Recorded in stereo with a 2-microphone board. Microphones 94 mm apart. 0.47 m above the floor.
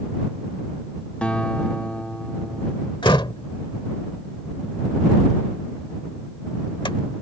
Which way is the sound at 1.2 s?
15° left (ahead or behind).